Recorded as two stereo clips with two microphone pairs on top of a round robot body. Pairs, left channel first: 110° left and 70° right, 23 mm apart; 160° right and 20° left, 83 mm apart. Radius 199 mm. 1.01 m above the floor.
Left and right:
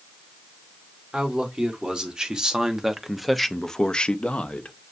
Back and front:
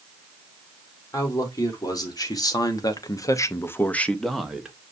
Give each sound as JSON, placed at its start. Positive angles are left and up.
{"t": 1.1, "sound": "a man speaking", "azimuth_deg": -115, "distance_m": 1.7}